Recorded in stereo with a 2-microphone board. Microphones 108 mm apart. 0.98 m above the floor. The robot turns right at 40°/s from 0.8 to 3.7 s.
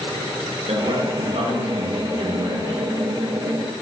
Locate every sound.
0.7 s a man speaking: 110° right, 0.8 m; by 2.8 s 30° right, 0.8 m